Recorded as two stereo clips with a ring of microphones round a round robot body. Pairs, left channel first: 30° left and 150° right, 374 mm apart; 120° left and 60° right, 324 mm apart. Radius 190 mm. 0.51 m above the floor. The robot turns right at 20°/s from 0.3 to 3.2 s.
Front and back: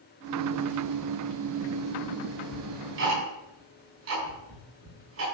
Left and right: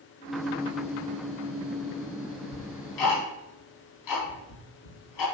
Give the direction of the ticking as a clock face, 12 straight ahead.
7 o'clock.